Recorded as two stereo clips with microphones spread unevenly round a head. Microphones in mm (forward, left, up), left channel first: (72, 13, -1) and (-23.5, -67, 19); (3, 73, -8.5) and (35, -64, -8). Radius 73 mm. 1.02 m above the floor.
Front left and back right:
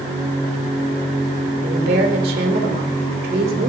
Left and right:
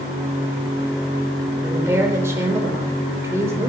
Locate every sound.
1.6 s a woman speaking: 150° right, 3 m